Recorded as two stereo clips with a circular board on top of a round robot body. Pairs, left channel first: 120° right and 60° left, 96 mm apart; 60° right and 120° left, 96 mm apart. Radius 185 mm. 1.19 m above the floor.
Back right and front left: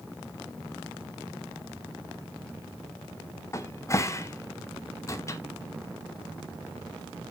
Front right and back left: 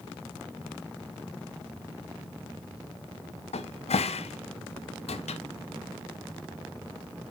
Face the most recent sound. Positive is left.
turn(degrees=-60)